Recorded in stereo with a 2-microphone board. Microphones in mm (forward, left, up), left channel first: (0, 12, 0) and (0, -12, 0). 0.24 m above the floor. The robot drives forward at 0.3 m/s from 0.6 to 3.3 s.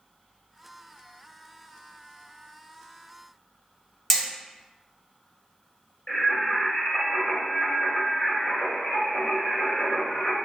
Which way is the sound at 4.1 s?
5° left (ahead or behind).